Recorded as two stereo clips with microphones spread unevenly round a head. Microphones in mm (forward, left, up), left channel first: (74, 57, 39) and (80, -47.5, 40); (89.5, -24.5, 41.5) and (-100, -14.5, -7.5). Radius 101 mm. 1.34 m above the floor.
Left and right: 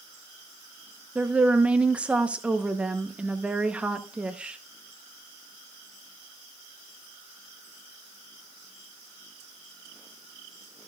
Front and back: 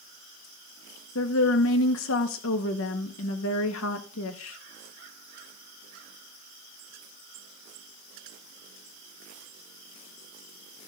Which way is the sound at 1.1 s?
5° right.